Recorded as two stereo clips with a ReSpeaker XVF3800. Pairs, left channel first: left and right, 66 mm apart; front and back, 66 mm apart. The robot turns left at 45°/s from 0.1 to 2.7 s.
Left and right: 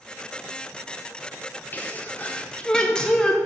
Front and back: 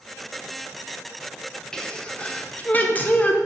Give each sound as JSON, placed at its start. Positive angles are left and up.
{"t": 1.7, "sound": "a sneeze", "azimuth_deg": 70, "distance_m": 0.8}